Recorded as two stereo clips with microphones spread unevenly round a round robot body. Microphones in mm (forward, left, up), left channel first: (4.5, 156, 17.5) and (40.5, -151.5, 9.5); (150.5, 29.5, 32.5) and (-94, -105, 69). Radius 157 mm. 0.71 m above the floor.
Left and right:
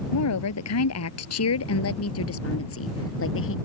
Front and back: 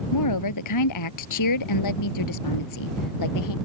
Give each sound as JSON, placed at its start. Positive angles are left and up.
{"t": 0.1, "sound": "a woman speaking", "azimuth_deg": 60}